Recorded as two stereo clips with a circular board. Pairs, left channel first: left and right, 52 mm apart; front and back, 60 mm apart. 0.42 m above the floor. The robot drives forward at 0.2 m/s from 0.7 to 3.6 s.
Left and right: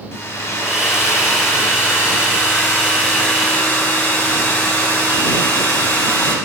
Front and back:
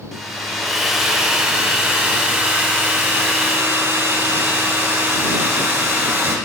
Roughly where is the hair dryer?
Left.